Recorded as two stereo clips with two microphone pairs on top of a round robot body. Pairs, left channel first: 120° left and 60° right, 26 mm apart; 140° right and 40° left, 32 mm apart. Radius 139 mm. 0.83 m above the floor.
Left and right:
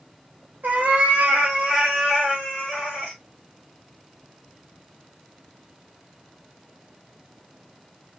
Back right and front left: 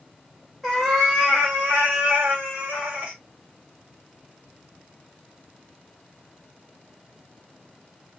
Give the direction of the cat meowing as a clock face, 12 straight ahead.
2 o'clock.